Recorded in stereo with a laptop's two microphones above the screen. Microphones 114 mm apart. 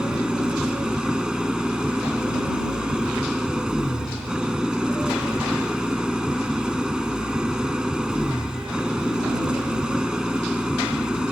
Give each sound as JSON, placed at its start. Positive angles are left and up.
{"t": 0.0, "sound": "an engine running", "side_deg": -5}